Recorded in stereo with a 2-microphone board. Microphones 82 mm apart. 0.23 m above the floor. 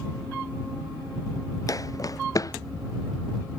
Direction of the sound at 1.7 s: 45° left (ahead or behind).